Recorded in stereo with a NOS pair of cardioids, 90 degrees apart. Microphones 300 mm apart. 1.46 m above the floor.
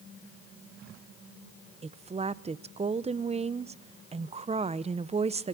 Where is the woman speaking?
20° right, 0.7 m.